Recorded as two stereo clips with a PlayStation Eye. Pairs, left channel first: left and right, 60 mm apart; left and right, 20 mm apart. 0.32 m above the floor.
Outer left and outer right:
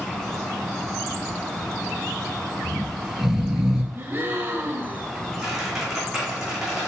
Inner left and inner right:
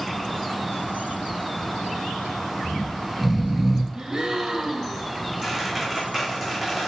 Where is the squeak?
5° right (ahead or behind), 3 m.